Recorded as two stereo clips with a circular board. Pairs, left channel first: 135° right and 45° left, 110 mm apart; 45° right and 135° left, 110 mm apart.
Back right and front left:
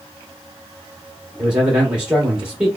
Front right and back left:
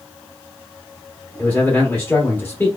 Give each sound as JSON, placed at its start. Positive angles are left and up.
{"t": 1.4, "sound": "a man speaking", "azimuth_deg": -20, "distance_m": 1.0}